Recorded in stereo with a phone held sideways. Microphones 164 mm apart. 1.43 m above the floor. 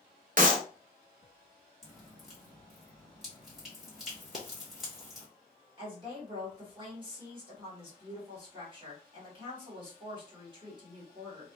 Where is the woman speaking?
30° right (ahead or behind), 1.6 m.